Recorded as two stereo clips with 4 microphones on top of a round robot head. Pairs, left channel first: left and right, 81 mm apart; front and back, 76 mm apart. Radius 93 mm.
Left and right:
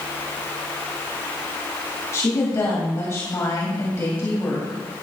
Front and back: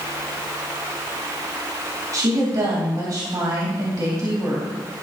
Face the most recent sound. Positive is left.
turn(degrees=140)